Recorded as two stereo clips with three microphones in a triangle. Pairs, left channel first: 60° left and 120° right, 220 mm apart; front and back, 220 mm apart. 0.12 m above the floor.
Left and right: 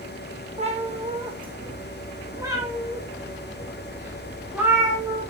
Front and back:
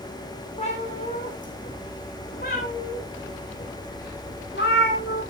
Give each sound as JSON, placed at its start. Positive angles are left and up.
{"t": 0.6, "sound": "a cat meowing", "azimuth_deg": -60, "distance_m": 2.5}